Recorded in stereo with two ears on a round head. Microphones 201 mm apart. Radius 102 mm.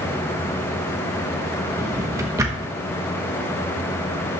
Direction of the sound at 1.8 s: 15° right (ahead or behind).